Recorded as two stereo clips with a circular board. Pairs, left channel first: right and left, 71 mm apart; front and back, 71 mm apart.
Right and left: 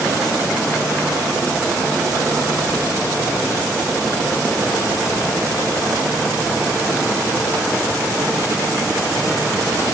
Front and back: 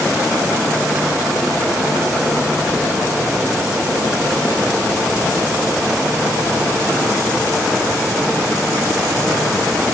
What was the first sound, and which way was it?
Only background noise.